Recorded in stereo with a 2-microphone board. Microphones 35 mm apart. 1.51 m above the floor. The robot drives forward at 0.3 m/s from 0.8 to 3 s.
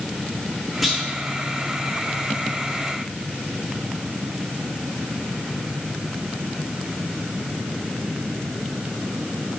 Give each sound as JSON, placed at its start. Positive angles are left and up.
{"t": 0.8, "sound": "a clunk", "side_deg": 0, "distance_m": 1.4}